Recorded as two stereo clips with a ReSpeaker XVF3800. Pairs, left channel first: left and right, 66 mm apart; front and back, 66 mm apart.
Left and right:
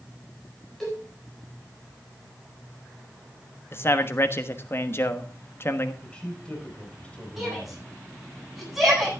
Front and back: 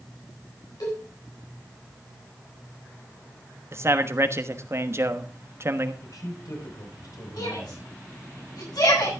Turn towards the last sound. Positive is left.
turn(degrees=-5)